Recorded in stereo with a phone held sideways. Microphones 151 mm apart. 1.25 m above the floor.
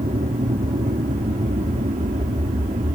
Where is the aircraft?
65° right (ahead or behind).